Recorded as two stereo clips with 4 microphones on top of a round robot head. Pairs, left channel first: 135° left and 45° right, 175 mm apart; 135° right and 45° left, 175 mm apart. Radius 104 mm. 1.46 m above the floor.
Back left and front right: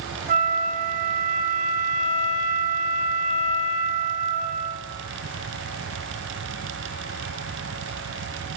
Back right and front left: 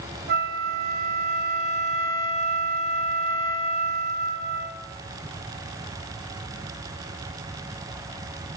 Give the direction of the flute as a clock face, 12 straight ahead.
12 o'clock.